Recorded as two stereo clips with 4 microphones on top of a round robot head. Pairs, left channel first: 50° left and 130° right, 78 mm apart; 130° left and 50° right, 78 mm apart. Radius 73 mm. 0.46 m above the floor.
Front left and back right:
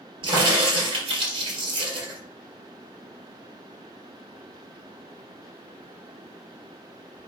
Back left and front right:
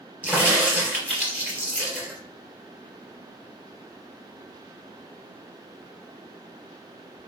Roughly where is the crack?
Behind right.